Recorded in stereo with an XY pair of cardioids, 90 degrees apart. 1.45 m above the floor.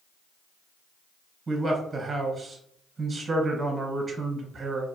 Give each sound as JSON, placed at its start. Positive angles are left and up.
{"t": 1.5, "sound": "a man speaking", "azimuth_deg": -35, "distance_m": 0.8}